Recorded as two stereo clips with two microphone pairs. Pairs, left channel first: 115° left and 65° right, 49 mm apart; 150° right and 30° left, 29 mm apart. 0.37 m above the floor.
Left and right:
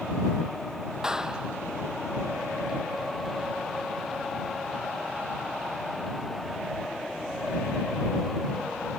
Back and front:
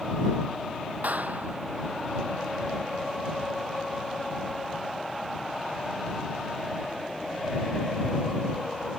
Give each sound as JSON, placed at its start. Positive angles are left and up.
{"t": 1.0, "sound": "a clap", "azimuth_deg": 10}